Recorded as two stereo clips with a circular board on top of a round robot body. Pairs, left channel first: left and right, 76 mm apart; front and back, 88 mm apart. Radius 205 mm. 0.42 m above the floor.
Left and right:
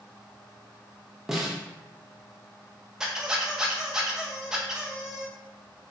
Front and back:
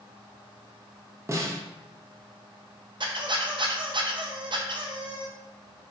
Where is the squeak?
170° right, 0.6 m.